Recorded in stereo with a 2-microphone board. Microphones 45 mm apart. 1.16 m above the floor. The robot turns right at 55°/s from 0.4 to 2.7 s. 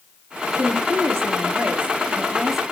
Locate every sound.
0.6 s a woman speaking: 115° right, 2 m; by 2.6 s 5° right, 2 m